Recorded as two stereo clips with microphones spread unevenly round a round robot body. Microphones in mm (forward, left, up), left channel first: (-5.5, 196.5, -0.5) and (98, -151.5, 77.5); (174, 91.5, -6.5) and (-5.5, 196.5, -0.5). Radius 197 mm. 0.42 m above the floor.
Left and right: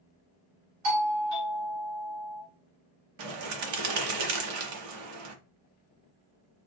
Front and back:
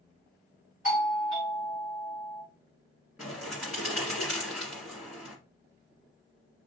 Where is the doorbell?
125° right, 3.5 m.